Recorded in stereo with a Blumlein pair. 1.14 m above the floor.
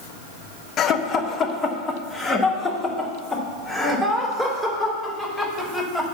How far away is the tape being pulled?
I don't hear tape being pulled.